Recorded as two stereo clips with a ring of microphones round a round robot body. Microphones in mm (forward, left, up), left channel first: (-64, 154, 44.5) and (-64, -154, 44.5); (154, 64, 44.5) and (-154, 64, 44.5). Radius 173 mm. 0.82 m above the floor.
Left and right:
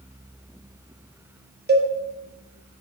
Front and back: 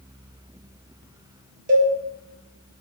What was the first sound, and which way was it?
A cowbell, 130° right.